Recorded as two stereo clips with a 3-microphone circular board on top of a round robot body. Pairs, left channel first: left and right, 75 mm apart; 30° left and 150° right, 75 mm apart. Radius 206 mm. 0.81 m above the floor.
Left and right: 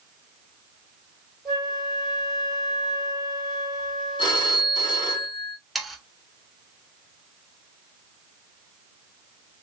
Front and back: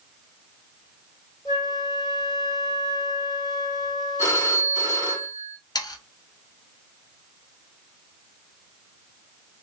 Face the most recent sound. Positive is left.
turn(degrees=0)